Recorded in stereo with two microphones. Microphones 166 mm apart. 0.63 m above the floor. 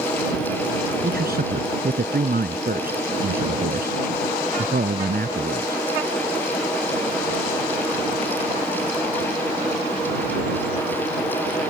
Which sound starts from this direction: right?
A man speaking, at 1.0 s.